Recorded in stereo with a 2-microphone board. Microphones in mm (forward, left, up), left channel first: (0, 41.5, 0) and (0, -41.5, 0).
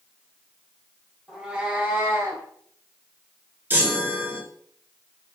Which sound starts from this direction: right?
A chime, at 3.7 s.